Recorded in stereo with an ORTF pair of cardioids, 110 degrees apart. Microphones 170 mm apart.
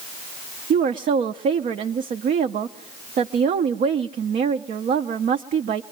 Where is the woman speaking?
50° right, 0.7 m.